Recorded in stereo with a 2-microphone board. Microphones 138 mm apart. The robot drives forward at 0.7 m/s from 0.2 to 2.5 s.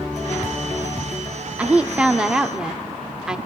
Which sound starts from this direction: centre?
A woman speaking, at 1.6 s.